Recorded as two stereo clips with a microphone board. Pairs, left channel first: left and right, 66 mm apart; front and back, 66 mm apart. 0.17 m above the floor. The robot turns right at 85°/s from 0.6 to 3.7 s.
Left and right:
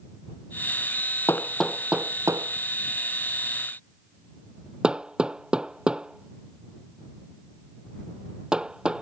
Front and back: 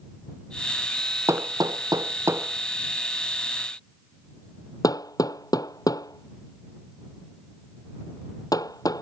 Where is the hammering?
140° left; by 9.0 s 15° right.